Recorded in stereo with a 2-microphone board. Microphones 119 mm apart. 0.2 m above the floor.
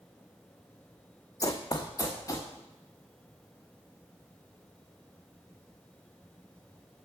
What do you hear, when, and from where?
1.4 s running footsteps: 30° left (ahead or behind), 0.7 m